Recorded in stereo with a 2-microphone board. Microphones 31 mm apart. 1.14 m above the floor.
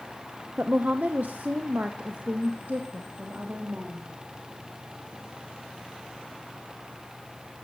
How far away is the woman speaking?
About 0.9 m.